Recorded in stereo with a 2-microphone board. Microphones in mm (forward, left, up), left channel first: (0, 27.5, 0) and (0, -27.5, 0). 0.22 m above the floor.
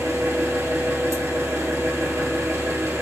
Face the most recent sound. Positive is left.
turn(degrees=-80)